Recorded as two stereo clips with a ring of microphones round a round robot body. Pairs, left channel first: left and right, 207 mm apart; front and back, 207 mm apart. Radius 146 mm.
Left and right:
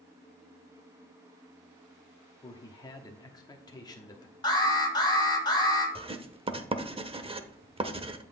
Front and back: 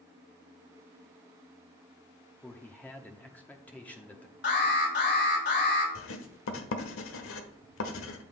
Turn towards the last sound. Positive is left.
turn(degrees=-25)